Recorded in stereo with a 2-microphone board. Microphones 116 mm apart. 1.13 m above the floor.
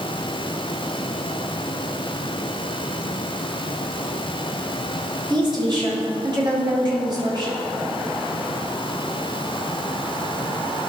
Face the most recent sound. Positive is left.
turn(degrees=-40)  # may be behind; listen again after turning